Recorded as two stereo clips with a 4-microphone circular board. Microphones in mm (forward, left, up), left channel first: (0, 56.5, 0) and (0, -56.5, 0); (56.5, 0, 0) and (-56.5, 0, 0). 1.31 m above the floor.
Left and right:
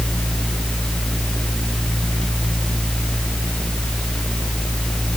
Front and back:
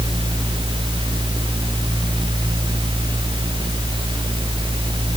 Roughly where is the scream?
No scream in this recording.